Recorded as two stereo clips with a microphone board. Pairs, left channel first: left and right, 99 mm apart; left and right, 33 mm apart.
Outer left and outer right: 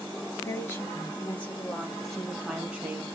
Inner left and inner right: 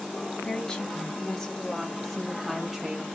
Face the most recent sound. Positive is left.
turn(degrees=-20)  # may be behind; listen again after turning